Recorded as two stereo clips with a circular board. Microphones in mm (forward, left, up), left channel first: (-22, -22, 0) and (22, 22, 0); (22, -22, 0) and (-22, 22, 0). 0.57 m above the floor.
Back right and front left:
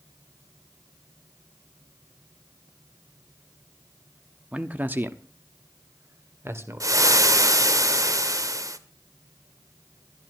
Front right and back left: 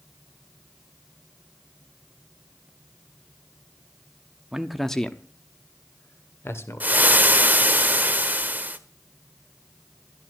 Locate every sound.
4.5 s a man speaking: 75° left, 0.9 m; by 7.3 s straight ahead, 2.5 m
6.8 s frying: 75° left, 1.3 m